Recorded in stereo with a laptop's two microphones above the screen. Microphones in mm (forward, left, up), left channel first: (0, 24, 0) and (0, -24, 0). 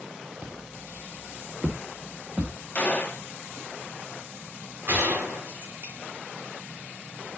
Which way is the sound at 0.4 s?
35° right (ahead or behind).